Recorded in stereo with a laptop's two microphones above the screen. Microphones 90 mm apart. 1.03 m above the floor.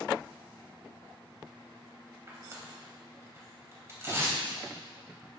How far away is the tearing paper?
About 3 m.